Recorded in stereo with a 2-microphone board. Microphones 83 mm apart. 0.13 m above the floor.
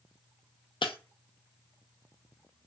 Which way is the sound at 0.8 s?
85° left.